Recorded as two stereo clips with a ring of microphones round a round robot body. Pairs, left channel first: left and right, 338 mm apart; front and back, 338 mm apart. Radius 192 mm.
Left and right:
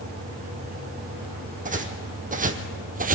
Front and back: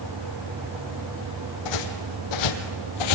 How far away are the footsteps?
About 2.5 m.